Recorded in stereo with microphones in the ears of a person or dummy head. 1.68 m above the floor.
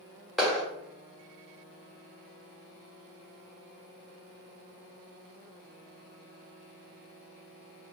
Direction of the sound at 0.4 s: Centre (ahead or behind).